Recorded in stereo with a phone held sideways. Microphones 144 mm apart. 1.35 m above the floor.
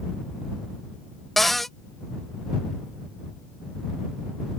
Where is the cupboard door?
Centre (ahead or behind).